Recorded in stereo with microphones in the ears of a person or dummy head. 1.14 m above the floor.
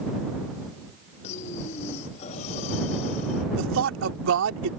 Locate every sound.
1.2 s breathing: 35° left (ahead or behind)
3.5 s a man speaking: 70° right (ahead or behind)